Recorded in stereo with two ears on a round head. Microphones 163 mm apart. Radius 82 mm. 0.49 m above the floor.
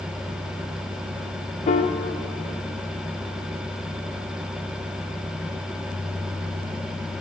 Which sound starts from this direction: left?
A piano, at 1.7 s.